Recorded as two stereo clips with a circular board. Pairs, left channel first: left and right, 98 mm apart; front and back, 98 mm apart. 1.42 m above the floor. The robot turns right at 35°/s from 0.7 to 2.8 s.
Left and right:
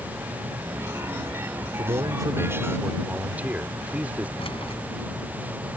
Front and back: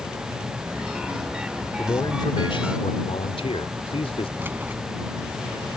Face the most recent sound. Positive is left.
turn(degrees=110)